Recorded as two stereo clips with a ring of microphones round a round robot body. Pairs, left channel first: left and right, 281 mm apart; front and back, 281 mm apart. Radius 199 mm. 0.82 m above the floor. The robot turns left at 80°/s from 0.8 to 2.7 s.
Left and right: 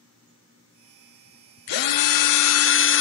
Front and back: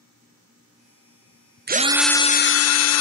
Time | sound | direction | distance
1.7 | a drill | 120° left | 0.7 m